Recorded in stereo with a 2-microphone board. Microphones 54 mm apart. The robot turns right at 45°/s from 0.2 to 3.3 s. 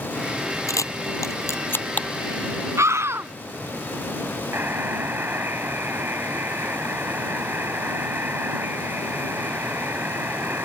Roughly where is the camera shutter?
Left.